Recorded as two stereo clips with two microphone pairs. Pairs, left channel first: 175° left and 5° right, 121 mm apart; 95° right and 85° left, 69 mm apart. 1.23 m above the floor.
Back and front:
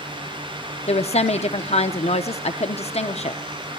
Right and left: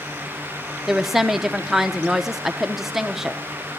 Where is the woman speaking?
170° left, 0.7 m.